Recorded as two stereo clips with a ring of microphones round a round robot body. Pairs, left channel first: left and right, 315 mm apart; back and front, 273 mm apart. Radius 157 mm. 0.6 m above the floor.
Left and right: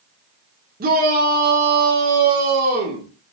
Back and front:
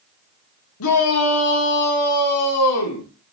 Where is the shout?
150° right, 1.4 m.